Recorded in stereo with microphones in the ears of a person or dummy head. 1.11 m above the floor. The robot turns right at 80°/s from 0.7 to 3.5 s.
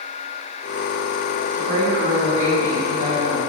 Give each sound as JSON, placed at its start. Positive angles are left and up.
{"t": 1.5, "sound": "a woman speaking", "azimuth_deg": -145, "distance_m": 1.7}